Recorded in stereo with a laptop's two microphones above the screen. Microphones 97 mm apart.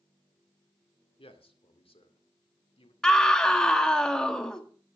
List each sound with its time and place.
1.2 s a man speaking: 80° left, 2 m
3.0 s a scream: 10° left (ahead or behind), 1.7 m